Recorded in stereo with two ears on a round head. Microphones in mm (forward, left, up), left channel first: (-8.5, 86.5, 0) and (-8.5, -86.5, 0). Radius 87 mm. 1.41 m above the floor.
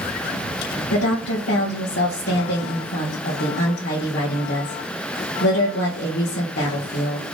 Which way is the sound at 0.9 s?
55° left (ahead or behind).